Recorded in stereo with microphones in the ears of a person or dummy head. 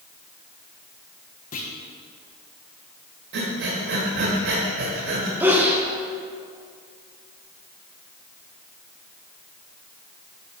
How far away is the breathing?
About 1.5 m.